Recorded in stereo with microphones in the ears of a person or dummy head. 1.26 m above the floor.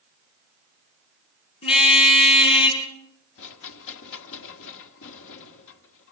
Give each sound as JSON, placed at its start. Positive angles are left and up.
{"t": 1.6, "sound": "a car horn", "side_deg": 35, "distance_m": 6.0}
{"t": 3.4, "sound": "a rattle", "side_deg": 70, "distance_m": 1.4}